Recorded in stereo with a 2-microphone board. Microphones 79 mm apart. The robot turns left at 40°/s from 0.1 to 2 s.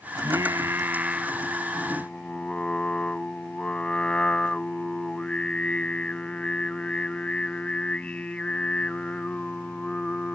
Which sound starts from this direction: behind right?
Singing, at 0.1 s.